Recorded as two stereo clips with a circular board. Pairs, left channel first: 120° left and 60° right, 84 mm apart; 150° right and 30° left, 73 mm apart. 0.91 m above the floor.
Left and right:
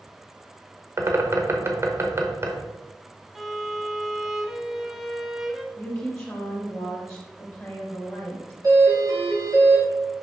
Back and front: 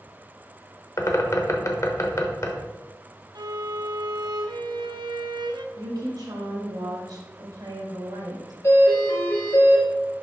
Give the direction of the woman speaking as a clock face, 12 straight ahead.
11 o'clock.